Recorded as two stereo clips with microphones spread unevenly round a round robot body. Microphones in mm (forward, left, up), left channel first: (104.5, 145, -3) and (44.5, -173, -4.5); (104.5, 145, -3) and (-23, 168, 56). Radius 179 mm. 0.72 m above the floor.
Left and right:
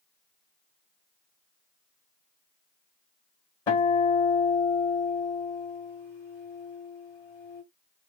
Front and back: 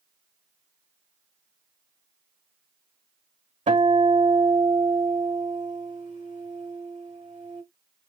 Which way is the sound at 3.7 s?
160° left.